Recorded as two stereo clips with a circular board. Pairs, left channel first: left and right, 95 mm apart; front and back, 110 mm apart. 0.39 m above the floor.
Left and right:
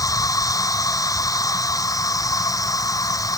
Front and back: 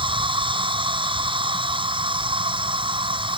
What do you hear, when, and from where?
0.0 s an insect: 140° left